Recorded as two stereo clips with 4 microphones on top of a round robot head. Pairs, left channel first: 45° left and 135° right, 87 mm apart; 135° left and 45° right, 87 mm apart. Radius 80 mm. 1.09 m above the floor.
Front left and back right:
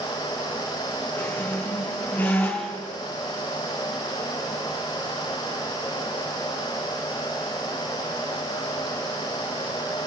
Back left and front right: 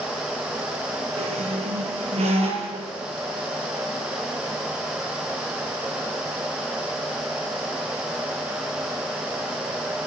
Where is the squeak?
30° right, 5 m.